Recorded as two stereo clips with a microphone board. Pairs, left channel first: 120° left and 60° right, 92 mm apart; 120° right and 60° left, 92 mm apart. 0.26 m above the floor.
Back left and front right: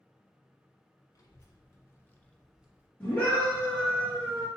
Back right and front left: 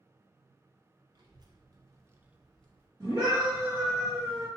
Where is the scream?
60° left, 1.5 m.